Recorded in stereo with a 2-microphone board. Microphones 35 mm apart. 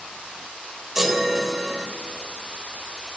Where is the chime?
10° right (ahead or behind), 1.1 m.